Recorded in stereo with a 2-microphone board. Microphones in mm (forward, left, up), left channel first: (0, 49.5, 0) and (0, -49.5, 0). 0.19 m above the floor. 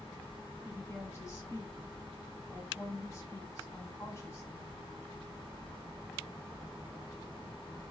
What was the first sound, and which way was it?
A woman speaking, 25° left (ahead or behind).